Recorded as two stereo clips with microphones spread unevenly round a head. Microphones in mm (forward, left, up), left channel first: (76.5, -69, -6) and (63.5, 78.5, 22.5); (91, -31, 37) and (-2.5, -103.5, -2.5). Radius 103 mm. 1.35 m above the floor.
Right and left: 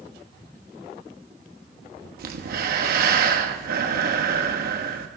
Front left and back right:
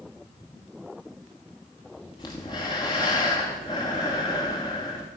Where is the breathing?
100° left, 1.4 m.